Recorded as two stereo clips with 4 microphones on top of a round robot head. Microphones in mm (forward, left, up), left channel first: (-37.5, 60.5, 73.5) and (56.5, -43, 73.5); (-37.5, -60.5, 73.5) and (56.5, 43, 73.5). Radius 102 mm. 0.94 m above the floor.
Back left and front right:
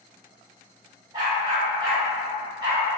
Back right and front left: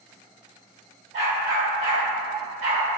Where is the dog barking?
10° left, 1.2 m.